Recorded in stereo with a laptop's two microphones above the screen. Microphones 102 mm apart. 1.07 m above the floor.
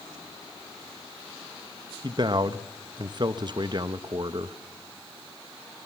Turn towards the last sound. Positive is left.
turn(degrees=-45)  # may be behind; listen again after turning